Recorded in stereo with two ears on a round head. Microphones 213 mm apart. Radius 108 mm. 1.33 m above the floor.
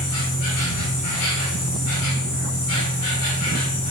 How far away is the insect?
About 6.5 m.